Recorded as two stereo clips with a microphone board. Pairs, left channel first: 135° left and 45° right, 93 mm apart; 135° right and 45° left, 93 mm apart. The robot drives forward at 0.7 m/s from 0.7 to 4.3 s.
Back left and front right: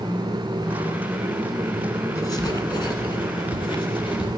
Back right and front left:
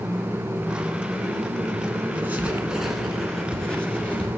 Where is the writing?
105° left, 1.2 m; by 4.3 s 155° left, 2 m.